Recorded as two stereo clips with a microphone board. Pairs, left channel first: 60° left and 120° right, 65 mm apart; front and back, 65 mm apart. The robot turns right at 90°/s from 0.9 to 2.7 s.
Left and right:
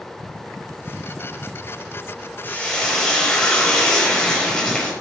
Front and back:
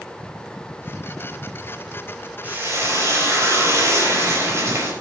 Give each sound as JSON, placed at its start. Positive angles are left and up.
{"t": 2.4, "sound": "frying", "azimuth_deg": 115, "distance_m": 5.0}